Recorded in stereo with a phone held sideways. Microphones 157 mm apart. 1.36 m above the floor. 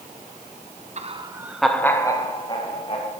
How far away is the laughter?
About 0.9 m.